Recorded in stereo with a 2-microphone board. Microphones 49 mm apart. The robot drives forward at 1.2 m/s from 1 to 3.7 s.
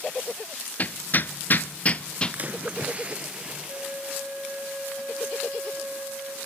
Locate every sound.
0.8 s hammering: 35° left (ahead or behind), 0.7 m; by 2.4 s 20° left (ahead or behind), 1.4 m
2.3 s a splash: 35° right (ahead or behind), 1.3 m; by 4.7 s 20° right (ahead or behind), 2.5 m
3.7 s a flute: 50° right (ahead or behind), 4.5 m